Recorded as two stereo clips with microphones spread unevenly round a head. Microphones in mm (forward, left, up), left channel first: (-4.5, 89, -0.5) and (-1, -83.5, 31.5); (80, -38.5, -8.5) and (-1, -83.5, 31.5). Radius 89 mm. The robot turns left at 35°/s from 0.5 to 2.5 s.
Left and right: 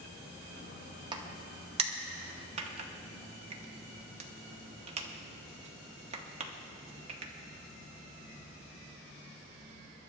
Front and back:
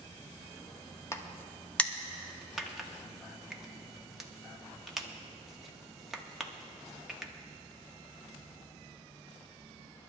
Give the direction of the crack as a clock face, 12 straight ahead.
2 o'clock.